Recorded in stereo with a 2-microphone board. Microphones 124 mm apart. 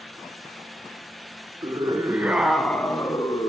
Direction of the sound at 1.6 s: 35° right (ahead or behind).